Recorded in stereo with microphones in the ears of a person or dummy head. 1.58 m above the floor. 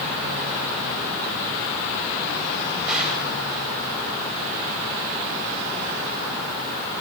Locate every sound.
2.9 s a gunshot: 10° right (ahead or behind), 8.5 m